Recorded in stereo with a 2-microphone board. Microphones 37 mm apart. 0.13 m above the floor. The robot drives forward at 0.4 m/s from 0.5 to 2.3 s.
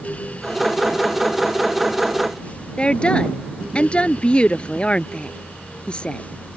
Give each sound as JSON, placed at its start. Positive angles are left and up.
{"t": 2.8, "sound": "a woman speaking", "side_deg": 30}